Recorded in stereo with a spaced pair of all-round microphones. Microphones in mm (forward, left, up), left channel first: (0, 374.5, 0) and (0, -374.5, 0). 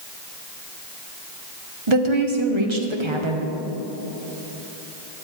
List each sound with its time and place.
1.9 s a woman speaking: 40° right (ahead or behind), 1.4 m